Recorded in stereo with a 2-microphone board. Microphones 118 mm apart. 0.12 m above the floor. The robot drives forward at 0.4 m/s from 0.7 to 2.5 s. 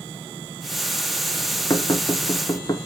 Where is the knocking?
30° left (ahead or behind), 1.1 m; by 2.8 s 35° left (ahead or behind), 1.0 m.